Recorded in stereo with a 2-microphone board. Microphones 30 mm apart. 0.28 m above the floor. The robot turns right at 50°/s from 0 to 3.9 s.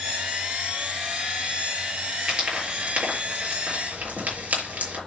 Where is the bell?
No bell in this recording.